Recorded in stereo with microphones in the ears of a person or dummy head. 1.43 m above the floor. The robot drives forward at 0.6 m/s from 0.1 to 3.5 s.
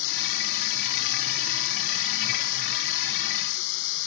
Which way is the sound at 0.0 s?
75° left (ahead or behind).